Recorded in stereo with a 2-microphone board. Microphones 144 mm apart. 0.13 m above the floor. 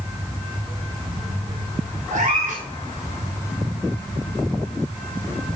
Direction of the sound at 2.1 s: 55° right (ahead or behind).